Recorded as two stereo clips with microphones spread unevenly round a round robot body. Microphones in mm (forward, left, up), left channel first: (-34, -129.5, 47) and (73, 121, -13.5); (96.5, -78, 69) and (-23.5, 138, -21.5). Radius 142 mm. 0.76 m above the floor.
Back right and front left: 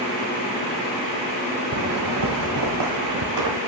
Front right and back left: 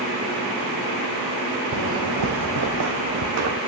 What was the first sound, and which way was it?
Footsteps, 105° left.